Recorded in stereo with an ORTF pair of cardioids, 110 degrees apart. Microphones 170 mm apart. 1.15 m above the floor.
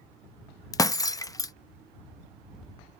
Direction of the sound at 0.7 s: 20° left.